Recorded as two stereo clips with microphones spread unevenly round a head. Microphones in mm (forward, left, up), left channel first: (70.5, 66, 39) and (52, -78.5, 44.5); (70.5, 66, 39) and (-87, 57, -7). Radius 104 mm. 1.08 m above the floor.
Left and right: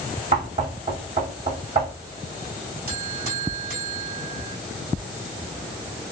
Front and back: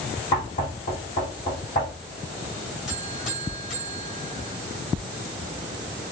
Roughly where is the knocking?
Ahead right.